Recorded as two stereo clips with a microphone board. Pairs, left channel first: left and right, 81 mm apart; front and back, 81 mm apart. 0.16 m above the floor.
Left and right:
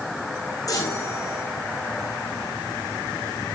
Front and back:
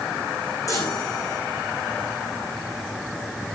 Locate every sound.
0.7 s a chime: 45° left, 5 m